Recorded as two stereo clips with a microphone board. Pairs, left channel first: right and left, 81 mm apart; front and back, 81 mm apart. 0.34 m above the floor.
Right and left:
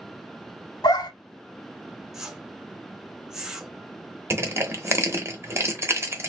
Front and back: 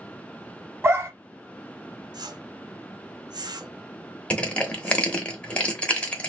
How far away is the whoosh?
About 0.6 m.